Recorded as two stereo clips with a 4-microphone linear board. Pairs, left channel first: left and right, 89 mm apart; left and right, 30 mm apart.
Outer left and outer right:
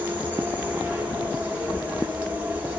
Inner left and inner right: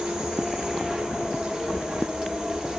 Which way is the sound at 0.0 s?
20° right (ahead or behind).